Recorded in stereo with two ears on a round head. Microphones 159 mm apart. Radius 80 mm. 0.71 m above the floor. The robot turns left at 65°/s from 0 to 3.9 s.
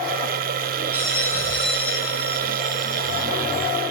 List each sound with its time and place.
0.9 s a bell: 165° right, 2.5 m; by 3.3 s 40° left, 2.5 m